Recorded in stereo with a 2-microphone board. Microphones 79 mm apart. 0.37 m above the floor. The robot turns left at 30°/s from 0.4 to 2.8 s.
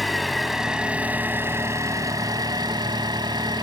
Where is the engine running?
Straight ahead, 1.0 m; by 3.6 s 75° right, 1.0 m.